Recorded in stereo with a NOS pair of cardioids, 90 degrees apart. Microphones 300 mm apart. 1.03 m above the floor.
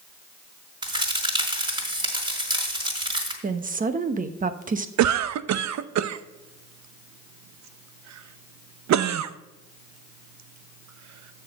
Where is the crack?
15° right, 4 m.